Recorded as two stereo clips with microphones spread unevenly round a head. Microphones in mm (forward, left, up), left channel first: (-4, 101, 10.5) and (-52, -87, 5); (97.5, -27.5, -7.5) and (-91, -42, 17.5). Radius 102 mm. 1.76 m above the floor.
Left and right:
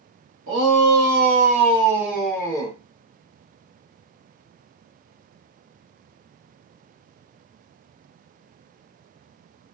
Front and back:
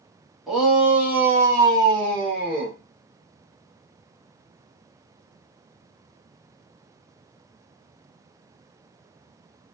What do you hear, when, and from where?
0.5 s a shout: 90° right, 1.2 m; by 2.8 s 135° left, 0.9 m